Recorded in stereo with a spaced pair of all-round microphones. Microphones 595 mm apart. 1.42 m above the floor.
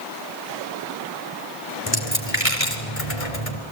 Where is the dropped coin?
65° left (ahead or behind), 3 m.